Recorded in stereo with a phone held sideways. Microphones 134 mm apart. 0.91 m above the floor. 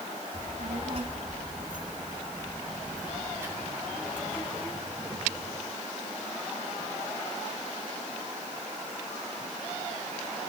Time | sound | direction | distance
0.3 | a child speaking | 55° right (ahead or behind) | 4 m